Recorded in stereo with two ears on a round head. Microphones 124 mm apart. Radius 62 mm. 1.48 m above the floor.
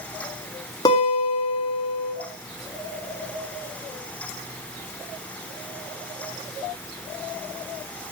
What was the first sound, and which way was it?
A guitar, 30° left (ahead or behind).